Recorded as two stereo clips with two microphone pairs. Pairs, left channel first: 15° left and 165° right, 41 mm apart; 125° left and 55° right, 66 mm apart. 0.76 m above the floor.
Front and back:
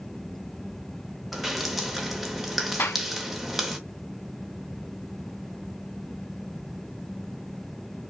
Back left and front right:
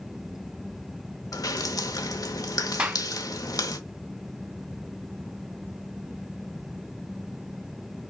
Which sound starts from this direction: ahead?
A clap, at 2.8 s.